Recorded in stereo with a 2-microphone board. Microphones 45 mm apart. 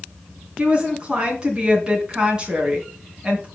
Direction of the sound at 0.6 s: 20° right (ahead or behind).